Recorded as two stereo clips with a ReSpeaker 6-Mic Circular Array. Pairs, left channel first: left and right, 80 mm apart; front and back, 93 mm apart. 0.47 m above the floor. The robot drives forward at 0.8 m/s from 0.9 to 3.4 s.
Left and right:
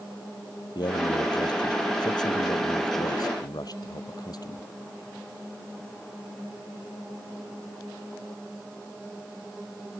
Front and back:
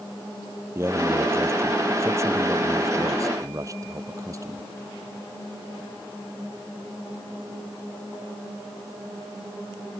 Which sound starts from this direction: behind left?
A man speaking, at 0.8 s.